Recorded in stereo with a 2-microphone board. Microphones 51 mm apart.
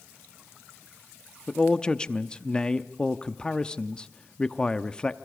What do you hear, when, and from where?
1.5 s a man speaking: 15° left (ahead or behind), 0.8 m